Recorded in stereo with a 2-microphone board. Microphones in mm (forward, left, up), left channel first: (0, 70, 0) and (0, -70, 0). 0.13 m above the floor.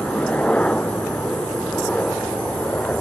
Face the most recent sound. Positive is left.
turn(degrees=10)  # may be behind; listen again after turning